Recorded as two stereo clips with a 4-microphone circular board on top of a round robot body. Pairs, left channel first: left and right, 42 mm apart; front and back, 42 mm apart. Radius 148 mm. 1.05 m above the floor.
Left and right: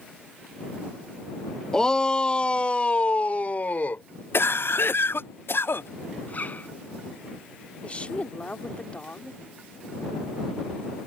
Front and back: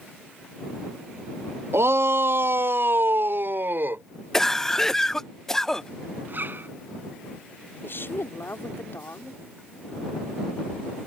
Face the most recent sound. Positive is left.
turn(degrees=30)